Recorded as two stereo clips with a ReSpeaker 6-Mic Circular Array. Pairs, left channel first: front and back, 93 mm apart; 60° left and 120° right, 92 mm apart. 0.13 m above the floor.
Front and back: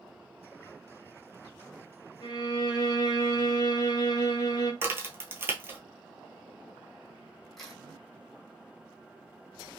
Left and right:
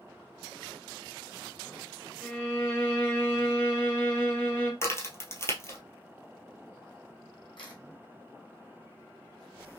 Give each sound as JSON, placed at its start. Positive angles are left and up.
{"t": 2.2, "sound": "a violin", "azimuth_deg": -5, "distance_m": 1.3}
{"t": 4.8, "sound": "a crack", "azimuth_deg": 115, "distance_m": 1.0}
{"t": 7.6, "sound": "a camera shutter", "azimuth_deg": 85, "distance_m": 1.6}